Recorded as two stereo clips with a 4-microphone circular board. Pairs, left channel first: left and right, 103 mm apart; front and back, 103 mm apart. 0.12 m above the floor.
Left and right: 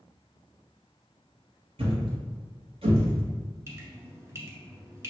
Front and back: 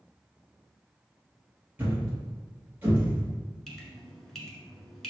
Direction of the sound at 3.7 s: 80° right.